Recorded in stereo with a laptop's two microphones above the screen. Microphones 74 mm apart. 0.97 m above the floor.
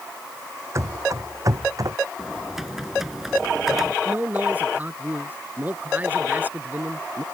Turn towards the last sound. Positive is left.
turn(degrees=-25)  # may be behind; listen again after turning